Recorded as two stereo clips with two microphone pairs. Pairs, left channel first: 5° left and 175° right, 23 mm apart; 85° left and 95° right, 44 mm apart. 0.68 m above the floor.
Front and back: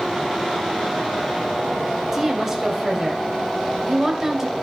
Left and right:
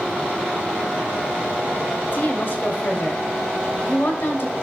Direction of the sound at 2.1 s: 115° left.